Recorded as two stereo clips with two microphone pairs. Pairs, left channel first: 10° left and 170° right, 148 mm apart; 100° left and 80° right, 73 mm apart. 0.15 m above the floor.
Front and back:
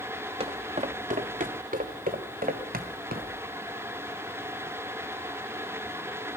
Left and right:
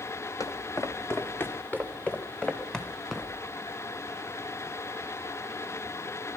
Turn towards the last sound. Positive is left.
turn(degrees=-170)